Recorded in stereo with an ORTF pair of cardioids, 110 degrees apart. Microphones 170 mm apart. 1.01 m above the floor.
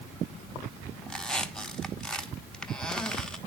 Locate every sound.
1.1 s a squeak: 5° left, 1.1 m